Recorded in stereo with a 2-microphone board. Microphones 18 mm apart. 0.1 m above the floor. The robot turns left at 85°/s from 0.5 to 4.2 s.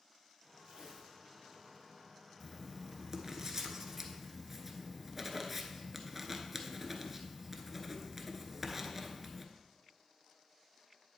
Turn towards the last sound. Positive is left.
turn(degrees=-10)  # may be behind; listen again after turning